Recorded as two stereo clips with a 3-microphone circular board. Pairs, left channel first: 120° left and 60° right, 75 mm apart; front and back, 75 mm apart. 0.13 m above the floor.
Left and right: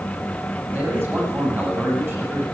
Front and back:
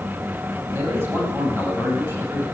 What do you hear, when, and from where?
0.7 s a man speaking: 125° right, 6 m